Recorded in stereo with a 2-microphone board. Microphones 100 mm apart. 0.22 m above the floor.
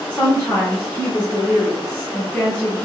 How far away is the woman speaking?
About 2 m.